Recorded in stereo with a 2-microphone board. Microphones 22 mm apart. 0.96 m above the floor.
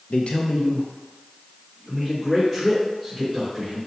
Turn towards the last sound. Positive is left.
turn(degrees=0)  # may be behind; listen again after turning